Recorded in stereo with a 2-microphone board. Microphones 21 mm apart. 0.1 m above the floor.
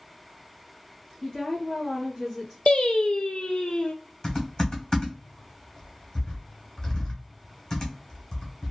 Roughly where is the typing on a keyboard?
Left.